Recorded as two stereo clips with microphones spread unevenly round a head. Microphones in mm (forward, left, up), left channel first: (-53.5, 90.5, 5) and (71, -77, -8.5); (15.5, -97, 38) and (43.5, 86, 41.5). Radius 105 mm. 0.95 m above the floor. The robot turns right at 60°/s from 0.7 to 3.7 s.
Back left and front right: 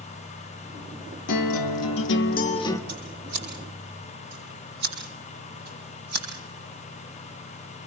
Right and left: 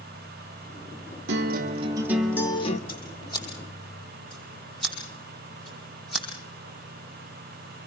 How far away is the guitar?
About 1.9 m.